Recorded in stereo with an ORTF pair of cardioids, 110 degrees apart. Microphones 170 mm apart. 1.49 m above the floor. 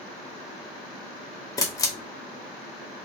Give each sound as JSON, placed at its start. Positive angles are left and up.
{"t": 1.6, "sound": "a camera shutter", "azimuth_deg": 20, "distance_m": 0.8}